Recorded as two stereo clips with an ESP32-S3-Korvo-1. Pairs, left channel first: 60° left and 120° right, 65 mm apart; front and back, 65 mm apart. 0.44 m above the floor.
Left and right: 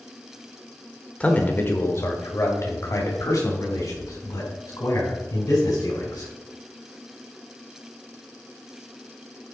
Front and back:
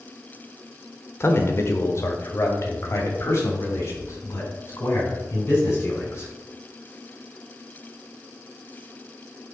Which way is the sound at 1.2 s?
5° left.